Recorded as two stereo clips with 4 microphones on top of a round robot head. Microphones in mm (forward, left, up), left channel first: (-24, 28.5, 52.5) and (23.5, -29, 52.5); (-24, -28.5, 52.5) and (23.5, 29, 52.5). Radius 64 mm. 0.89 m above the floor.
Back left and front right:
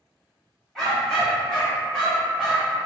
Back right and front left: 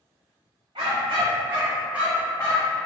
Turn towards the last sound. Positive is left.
turn(degrees=-145)